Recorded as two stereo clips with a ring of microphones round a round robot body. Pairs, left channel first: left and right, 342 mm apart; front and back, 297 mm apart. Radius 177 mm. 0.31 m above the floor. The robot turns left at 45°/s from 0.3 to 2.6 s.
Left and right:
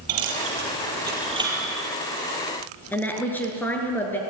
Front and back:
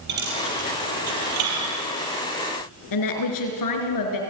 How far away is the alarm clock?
No alarm clock in this recording.